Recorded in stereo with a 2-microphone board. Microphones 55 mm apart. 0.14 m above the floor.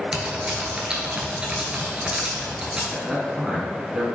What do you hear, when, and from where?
0.1 s typing on a keyboard: 15° right (ahead or behind), 0.7 m
2.9 s a man speaking: 10° right (ahead or behind), 1.1 m